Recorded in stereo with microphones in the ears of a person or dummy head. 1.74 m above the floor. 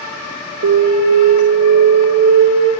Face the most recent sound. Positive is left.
turn(degrees=-60)  # may be behind; listen again after turning